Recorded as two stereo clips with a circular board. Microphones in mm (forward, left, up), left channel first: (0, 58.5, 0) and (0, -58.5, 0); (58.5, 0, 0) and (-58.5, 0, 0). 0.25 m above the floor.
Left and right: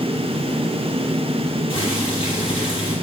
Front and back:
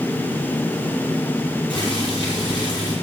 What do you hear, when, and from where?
1.7 s boiling: 45° left, 8 m